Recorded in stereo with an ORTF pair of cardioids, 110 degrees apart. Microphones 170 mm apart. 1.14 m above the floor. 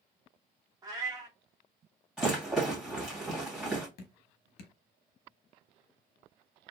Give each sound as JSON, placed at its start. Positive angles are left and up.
{"t": 0.8, "sound": "a cat meowing", "azimuth_deg": -20, "distance_m": 1.3}
{"t": 2.2, "sound": "a rattle", "azimuth_deg": -5, "distance_m": 2.5}
{"t": 4.0, "sound": "dripping", "azimuth_deg": 70, "distance_m": 1.0}